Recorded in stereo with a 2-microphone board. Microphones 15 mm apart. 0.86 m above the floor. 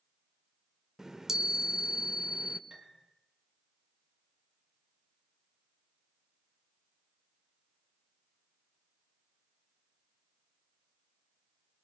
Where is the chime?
35° right (ahead or behind), 1.3 m.